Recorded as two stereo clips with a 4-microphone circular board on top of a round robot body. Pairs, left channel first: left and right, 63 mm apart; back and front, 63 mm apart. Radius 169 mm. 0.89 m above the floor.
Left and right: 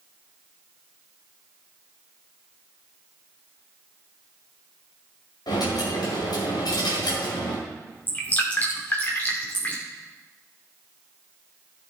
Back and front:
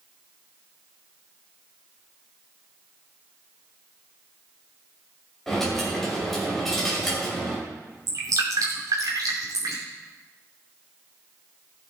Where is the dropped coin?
95° left, 2.5 m.